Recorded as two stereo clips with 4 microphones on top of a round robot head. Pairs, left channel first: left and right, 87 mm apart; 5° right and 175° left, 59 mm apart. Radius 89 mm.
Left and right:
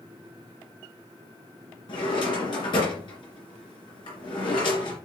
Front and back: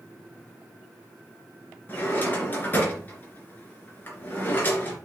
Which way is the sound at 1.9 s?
55° left.